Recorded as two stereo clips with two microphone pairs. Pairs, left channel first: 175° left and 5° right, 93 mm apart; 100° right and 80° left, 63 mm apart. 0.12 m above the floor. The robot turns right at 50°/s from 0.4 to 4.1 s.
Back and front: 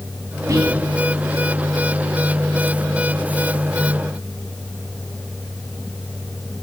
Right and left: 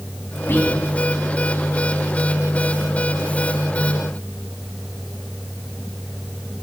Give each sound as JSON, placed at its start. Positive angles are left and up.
{"t": 0.5, "sound": "whispering", "azimuth_deg": -55, "distance_m": 3.0}